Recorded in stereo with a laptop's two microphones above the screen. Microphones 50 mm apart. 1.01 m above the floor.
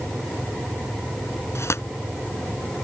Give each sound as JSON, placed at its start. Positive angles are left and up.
{"t": 1.6, "sound": "tearing paper", "side_deg": 65}